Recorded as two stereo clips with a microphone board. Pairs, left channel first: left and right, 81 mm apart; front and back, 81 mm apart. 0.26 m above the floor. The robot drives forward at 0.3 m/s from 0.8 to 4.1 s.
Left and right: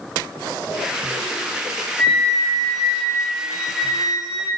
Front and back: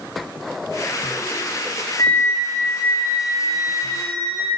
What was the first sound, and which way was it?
A flute, straight ahead.